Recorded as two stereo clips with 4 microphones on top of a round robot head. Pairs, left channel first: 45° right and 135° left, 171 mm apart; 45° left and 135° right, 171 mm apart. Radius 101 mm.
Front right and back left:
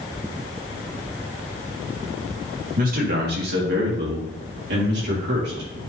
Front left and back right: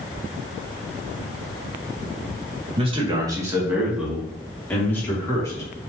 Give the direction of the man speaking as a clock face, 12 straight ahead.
6 o'clock.